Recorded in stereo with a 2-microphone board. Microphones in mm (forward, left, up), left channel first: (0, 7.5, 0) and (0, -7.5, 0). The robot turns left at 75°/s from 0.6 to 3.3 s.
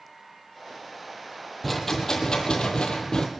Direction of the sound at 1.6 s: 170° left.